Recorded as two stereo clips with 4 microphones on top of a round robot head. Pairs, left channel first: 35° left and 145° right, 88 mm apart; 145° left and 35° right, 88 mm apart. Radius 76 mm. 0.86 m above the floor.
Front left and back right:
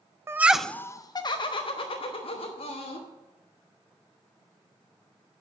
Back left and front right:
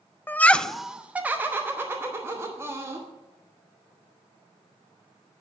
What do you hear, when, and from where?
0.3 s laughter: 170° right, 0.5 m; by 3.1 s 30° left, 1.9 m